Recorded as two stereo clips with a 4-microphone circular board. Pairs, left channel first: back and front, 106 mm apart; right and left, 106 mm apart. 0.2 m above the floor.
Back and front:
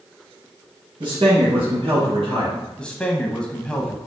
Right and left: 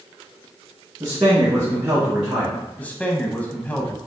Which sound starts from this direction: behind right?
A man speaking, at 2.8 s.